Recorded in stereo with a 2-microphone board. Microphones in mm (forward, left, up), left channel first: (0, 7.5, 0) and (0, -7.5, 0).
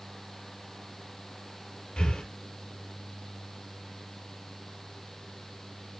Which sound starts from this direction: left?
Breathing, at 2.0 s.